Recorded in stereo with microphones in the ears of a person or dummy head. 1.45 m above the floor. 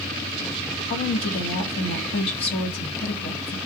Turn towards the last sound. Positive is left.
turn(degrees=30)  # may be behind; listen again after turning